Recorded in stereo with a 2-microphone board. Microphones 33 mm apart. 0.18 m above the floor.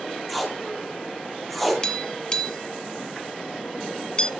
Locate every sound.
0.3 s tape being pulled: centre (ahead or behind), 1.9 m
1.8 s tapping: 25° left (ahead or behind), 0.9 m